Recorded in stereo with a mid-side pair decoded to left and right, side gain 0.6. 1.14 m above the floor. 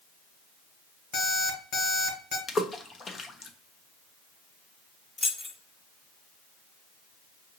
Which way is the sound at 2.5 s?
30° left.